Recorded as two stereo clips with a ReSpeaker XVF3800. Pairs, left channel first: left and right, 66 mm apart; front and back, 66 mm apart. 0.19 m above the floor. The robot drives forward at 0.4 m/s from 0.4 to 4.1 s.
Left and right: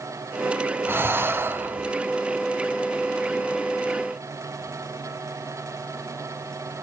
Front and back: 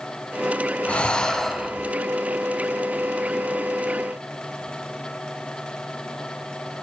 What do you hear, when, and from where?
0.9 s breathing: 60° right, 1.0 m; by 1.9 s 100° right, 1.0 m